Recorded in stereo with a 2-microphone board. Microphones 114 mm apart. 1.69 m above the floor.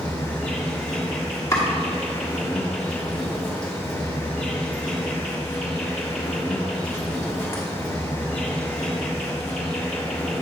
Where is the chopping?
25° left (ahead or behind), 1.3 m.